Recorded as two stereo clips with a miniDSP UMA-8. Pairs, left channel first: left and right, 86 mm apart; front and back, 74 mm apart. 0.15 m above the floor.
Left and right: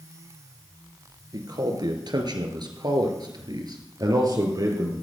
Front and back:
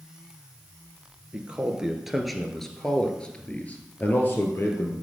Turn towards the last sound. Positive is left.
turn(degrees=-50)